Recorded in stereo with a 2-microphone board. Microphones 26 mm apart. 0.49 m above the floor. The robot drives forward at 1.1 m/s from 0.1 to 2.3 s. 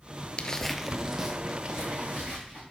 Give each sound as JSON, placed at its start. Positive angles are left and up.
{"t": 0.4, "sound": "footsteps", "side_deg": 35, "distance_m": 0.5}